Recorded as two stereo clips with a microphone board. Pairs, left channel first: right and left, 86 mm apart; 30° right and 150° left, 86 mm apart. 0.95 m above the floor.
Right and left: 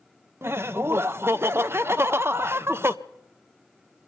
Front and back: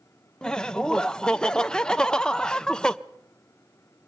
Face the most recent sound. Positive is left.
turn(degrees=45)